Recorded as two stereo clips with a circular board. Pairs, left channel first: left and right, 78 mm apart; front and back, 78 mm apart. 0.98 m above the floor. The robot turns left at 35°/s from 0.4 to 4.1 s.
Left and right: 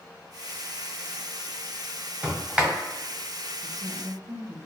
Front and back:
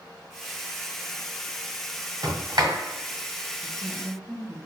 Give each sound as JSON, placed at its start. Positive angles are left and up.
{"t": 2.2, "sound": "a sliding door", "azimuth_deg": -155, "distance_m": 1.6}
{"t": 3.6, "sound": "a woman speaking", "azimuth_deg": -55, "distance_m": 1.0}